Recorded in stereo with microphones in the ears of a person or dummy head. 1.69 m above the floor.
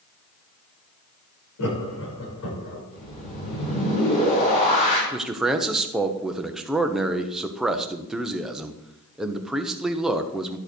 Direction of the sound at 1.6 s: 75° left (ahead or behind).